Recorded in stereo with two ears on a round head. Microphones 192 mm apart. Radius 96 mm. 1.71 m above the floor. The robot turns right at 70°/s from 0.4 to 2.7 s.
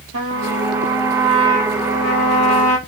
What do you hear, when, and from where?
0.1 s a trumpet: 60° right, 3 m; by 2.8 s 100° left, 3 m